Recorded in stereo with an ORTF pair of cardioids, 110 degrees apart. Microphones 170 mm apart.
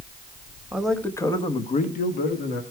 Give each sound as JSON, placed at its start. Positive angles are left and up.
{"t": 0.7, "sound": "a man speaking", "azimuth_deg": -5, "distance_m": 1.2}